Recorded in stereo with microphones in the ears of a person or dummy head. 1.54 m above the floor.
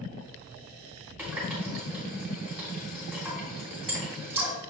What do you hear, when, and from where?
1.2 s a running tap: 10° right (ahead or behind), 3 m